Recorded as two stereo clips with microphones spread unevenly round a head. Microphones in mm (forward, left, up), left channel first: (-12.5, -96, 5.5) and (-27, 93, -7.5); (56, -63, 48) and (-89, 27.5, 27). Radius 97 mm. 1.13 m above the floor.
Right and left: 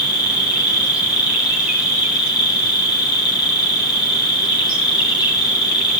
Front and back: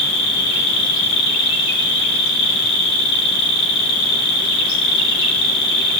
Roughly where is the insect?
Ahead.